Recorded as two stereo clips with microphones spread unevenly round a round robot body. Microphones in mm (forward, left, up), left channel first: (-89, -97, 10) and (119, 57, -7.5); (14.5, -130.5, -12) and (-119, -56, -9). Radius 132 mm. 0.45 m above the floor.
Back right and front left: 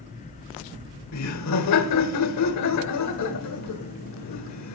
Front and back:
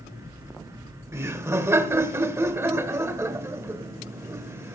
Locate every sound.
1.1 s laughter: 140° right, 1.3 m